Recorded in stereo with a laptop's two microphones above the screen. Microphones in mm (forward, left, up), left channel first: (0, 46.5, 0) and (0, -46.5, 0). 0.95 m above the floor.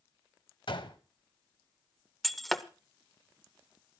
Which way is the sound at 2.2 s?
Centre (ahead or behind).